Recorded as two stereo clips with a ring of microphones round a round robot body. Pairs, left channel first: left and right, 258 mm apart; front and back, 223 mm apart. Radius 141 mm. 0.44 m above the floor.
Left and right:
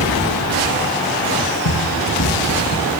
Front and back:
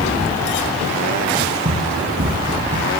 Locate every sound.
1.6 s running footsteps: 125° left, 4 m; by 2.9 s 135° left, 6 m